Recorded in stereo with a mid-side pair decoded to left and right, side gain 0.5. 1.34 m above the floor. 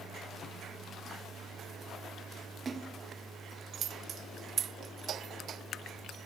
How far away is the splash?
About 2 m.